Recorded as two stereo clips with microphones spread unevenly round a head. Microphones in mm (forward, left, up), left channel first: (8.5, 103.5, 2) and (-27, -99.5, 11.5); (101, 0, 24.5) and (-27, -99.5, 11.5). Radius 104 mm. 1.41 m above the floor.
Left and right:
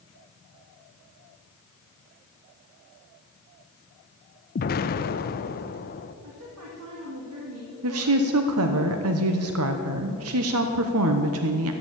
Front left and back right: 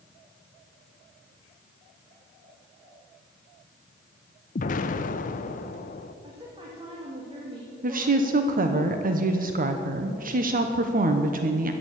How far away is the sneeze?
No sneeze in this recording.